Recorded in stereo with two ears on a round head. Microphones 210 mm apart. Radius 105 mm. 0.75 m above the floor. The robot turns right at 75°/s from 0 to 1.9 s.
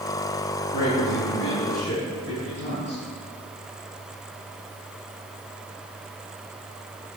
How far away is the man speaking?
About 5 m.